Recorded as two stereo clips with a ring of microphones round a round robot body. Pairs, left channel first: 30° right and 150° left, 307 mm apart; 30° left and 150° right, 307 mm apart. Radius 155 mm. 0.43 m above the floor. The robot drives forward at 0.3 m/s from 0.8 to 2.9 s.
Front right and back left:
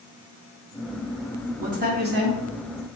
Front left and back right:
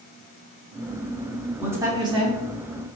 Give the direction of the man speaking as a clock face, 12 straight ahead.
8 o'clock.